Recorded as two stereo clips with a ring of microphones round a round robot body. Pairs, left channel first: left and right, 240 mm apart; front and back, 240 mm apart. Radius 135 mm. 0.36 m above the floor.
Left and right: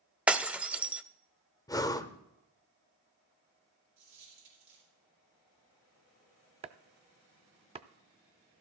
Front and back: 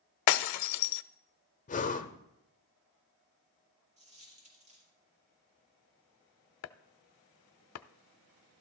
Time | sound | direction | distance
0.3 | breaking glass | 5° right | 0.5 m
1.7 | breathing | 25° left | 0.8 m
4.0 | a dropped coin | 120° right | 5 m
6.6 | chopping | 25° right | 0.5 m